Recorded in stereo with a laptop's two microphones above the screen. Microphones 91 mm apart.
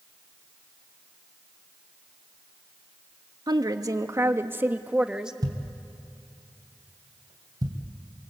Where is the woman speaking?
50° right (ahead or behind), 1.4 m; by 5.3 s 5° right (ahead or behind), 1.5 m.